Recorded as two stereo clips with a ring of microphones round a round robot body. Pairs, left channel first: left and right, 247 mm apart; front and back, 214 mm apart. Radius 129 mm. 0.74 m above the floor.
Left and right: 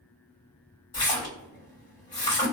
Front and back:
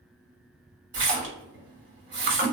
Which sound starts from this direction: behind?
A splash, at 0.9 s.